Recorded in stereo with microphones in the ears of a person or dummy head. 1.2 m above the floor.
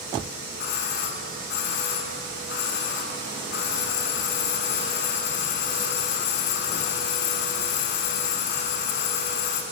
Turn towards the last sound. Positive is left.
turn(degrees=55)  # may be behind; listen again after turning